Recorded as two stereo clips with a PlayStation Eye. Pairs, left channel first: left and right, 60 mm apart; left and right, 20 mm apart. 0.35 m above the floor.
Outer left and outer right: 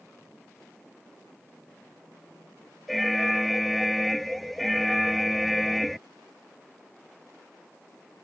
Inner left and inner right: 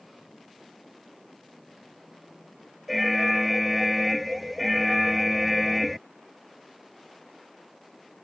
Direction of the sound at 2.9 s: Centre (ahead or behind).